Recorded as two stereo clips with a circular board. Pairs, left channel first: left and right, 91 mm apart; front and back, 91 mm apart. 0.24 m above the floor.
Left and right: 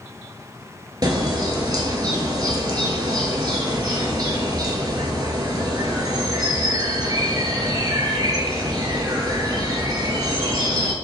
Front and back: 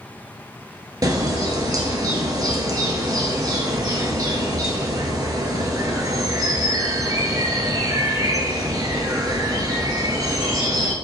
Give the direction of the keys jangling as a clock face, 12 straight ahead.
I don't hear keys jangling.